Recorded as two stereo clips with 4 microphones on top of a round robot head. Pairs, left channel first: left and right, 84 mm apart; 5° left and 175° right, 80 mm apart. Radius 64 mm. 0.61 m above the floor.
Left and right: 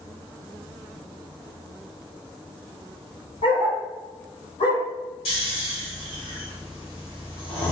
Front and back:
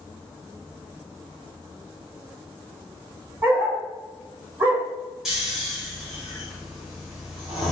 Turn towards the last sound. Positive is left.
turn(degrees=105)